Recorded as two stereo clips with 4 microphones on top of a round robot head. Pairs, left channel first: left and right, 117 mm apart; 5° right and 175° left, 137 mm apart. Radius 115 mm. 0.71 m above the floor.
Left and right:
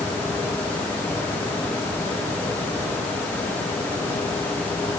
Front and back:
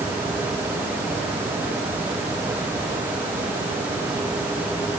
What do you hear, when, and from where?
Only background noise.